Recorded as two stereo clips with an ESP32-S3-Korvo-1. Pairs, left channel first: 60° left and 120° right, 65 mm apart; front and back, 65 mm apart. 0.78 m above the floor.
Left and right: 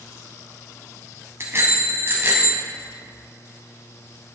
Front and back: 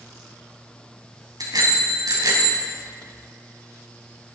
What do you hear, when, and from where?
1.4 s a bicycle bell: 170° right, 4 m; by 2.6 s 175° right, 3 m